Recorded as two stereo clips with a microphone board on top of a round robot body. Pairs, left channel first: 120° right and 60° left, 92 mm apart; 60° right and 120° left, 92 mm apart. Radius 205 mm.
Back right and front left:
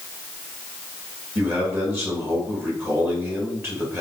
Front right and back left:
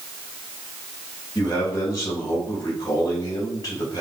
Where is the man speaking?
10° right, 3.5 m.